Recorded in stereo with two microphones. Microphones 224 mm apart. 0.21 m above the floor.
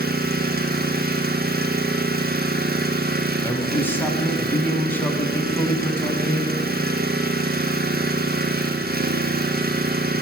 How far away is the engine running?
About 1.1 m.